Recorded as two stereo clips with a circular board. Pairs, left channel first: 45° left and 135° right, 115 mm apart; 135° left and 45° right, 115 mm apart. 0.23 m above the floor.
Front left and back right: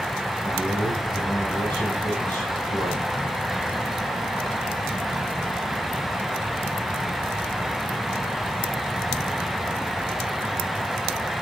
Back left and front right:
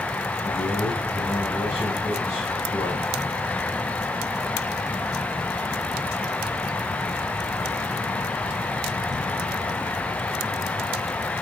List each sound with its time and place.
0.4 s a man speaking: 175° left, 9 m